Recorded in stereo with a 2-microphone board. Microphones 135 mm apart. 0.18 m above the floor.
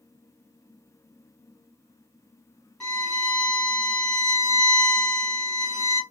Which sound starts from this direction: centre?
A violin, at 2.8 s.